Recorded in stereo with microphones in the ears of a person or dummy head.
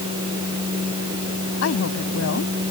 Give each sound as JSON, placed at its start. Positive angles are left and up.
{"t": 1.6, "sound": "a woman speaking", "side_deg": 85}